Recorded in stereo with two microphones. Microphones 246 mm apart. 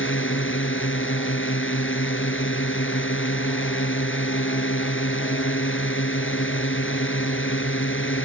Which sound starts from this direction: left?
A drone, at 0.0 s.